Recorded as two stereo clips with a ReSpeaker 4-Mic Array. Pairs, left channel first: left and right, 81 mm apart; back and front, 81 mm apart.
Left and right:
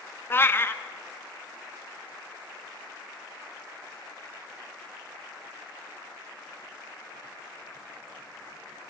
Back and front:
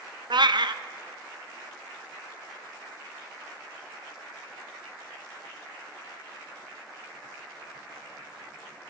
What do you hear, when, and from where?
0.3 s a cat meowing: 25° left, 0.5 m